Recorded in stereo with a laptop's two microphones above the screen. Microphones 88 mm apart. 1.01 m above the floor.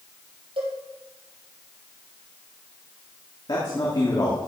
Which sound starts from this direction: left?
A man speaking, at 3.5 s.